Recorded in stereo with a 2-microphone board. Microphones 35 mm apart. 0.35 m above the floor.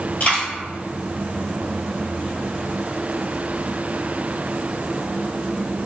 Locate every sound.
0.2 s a dropped coin: 45° left (ahead or behind), 1.9 m